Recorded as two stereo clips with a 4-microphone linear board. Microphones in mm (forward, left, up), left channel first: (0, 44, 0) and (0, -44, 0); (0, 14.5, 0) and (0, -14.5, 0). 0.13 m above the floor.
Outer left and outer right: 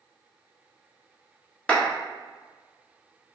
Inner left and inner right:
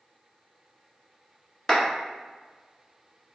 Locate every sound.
1.7 s a clap: 10° left (ahead or behind), 1.1 m